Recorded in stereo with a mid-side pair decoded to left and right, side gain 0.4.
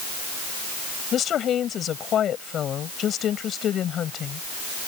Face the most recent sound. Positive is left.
turn(degrees=65)